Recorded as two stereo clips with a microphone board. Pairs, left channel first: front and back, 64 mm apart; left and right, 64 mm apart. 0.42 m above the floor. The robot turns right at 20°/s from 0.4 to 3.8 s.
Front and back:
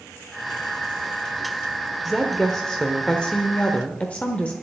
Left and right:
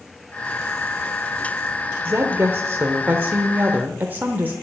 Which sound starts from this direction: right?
A woman speaking, at 2.0 s.